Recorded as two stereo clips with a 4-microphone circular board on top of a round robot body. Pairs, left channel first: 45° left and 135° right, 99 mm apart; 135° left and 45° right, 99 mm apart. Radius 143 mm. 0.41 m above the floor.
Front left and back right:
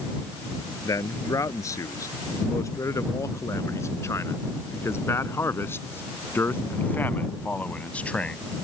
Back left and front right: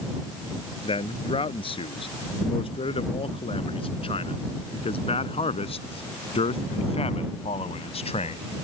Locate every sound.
0.8 s a man speaking: 105° left; by 8.4 s 125° left